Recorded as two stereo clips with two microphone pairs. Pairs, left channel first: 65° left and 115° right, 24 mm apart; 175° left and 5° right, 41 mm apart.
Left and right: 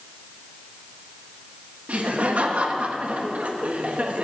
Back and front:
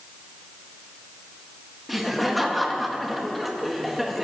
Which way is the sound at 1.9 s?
95° right.